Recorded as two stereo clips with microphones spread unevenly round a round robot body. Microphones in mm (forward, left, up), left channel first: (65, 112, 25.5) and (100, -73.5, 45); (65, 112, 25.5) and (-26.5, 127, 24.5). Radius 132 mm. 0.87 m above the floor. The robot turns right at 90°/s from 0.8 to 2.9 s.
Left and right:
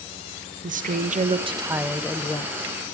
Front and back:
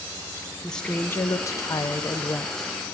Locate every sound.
0.6 s a woman speaking: 85° right, 1.0 m; by 2.7 s 85° left, 1.0 m